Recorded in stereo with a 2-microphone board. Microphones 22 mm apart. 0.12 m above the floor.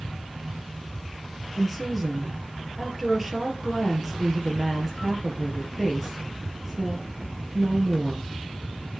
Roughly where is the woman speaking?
Centre.